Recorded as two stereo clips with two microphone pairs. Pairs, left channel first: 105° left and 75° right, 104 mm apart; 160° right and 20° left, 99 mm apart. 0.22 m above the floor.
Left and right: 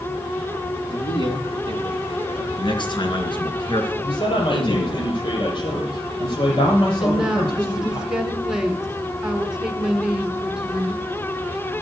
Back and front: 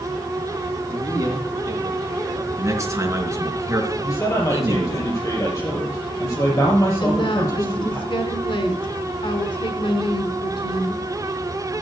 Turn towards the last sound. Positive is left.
turn(degrees=-155)